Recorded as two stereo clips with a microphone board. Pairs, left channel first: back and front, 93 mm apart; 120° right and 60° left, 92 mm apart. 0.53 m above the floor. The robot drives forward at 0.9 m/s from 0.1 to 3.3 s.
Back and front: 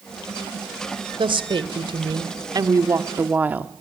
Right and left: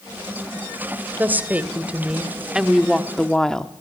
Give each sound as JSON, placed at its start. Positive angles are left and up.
{"t": 1.2, "sound": "a woman speaking", "azimuth_deg": -10, "distance_m": 2.5}